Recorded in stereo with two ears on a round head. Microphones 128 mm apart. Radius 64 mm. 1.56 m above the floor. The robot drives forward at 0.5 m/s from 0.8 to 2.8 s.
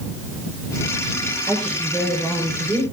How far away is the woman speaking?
About 6.5 m.